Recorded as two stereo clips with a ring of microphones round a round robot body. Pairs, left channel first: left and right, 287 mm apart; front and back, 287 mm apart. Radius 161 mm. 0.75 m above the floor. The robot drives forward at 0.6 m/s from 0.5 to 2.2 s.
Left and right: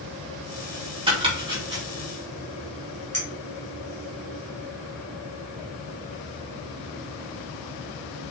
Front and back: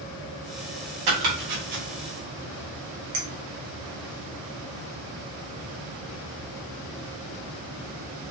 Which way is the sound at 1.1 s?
165° right.